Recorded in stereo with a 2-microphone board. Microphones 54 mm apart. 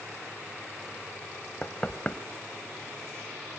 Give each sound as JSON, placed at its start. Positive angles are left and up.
{"t": 1.6, "sound": "knocking", "side_deg": 25, "distance_m": 1.2}